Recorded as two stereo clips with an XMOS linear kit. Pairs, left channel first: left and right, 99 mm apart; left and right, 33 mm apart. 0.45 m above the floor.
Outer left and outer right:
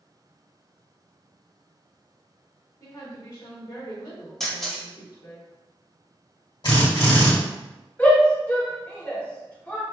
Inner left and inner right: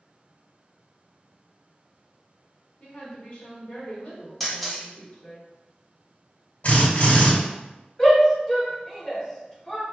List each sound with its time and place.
2.8 s a woman speaking: 45° left (ahead or behind), 1.8 m
4.4 s a camera shutter: 5° left (ahead or behind), 1.0 m
6.6 s a drill: 60° left (ahead or behind), 1.9 m
8.0 s a shout: 15° left (ahead or behind), 0.8 m